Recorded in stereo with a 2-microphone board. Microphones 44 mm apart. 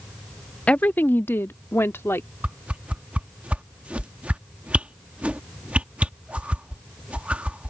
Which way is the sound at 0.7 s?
30° left (ahead or behind).